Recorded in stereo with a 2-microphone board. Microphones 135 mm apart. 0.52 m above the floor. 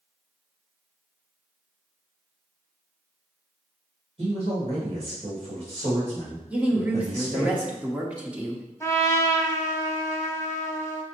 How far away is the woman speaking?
About 0.7 m.